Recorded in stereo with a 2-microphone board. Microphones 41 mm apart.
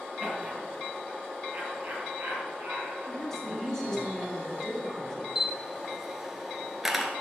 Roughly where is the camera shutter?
Centre.